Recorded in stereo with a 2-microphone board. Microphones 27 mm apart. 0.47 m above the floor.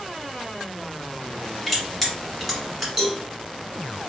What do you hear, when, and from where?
1.7 s crushing: centre (ahead or behind), 1.4 m
3.0 s a cowbell: 20° right (ahead or behind), 1.0 m